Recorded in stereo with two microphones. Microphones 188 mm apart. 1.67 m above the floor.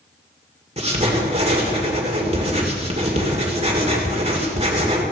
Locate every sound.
0.8 s writing: 35° right (ahead or behind), 2 m